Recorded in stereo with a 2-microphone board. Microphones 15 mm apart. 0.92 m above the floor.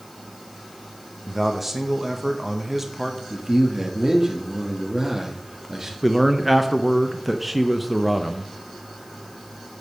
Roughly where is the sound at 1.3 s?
Centre.